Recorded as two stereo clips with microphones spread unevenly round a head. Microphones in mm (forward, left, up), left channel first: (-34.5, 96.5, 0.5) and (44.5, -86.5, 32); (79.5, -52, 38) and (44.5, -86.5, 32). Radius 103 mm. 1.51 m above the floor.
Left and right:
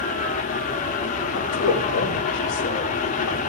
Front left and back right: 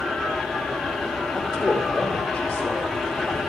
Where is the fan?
130° left, 1.2 m.